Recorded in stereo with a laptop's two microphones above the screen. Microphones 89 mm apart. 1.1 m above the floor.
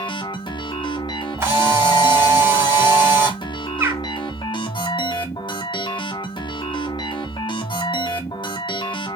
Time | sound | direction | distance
0.0 | a machine running | 60° left (ahead or behind) | 1.1 m
1.4 | a camera shutter | 30° right (ahead or behind) | 2.5 m
3.8 | a bird | 30° right (ahead or behind) | 0.9 m